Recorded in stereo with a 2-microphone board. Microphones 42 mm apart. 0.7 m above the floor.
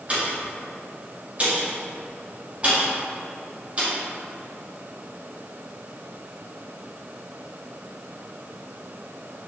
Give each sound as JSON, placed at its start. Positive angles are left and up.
{"t": 0.1, "sound": "a pop", "side_deg": -30, "distance_m": 0.8}